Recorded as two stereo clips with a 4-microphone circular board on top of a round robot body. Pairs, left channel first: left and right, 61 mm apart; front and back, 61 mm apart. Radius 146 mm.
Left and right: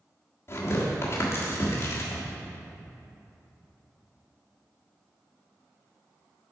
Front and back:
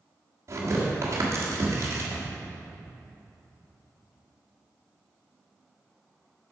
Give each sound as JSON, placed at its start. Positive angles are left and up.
{"t": 0.5, "sound": "tearing paper", "azimuth_deg": 135, "distance_m": 1.5}